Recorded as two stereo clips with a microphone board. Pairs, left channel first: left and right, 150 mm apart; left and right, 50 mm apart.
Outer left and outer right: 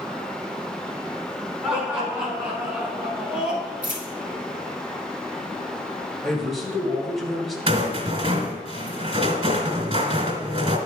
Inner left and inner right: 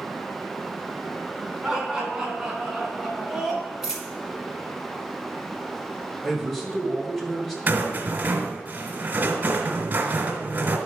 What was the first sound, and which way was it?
Laughter, 5° right (ahead or behind).